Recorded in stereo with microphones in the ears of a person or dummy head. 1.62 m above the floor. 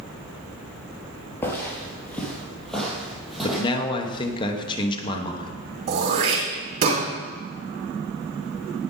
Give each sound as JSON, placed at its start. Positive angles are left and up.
{"t": 1.4, "sound": "footsteps", "side_deg": 10, "distance_m": 2.5}
{"t": 3.4, "sound": "a man speaking", "side_deg": 20, "distance_m": 1.2}
{"t": 5.9, "sound": "throat clearing", "side_deg": -50, "distance_m": 3.0}